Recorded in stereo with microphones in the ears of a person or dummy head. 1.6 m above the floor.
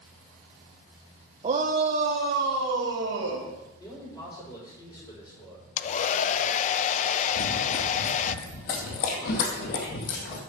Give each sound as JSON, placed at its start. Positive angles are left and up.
{"t": 1.4, "sound": "a shout", "side_deg": -35, "distance_m": 1.2}
{"t": 3.8, "sound": "a man speaking", "side_deg": 20, "distance_m": 6.0}
{"t": 5.8, "sound": "a hair dryer", "side_deg": 40, "distance_m": 0.6}
{"t": 7.3, "sound": "running footsteps", "side_deg": 30, "distance_m": 1.8}